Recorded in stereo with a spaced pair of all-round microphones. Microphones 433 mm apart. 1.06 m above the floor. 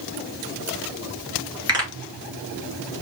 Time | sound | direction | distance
1.7 | a pop | 10° right (ahead or behind) | 1.9 m